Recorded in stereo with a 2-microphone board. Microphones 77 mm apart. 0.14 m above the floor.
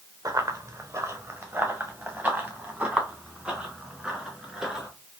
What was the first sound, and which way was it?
Running footsteps, 45° right (ahead or behind).